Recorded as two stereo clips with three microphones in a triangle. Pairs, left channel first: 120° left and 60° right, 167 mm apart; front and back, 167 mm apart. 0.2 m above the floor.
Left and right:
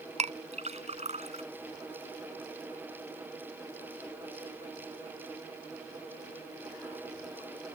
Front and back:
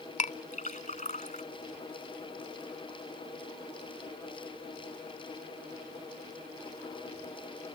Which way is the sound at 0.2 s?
25° right.